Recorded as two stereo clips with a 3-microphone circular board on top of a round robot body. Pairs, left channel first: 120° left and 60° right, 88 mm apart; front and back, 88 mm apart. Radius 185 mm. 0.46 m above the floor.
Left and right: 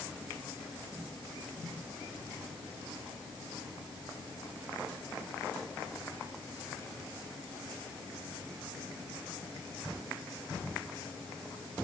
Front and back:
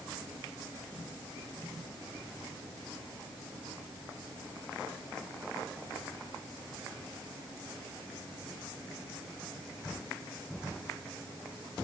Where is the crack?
I don't hear a crack.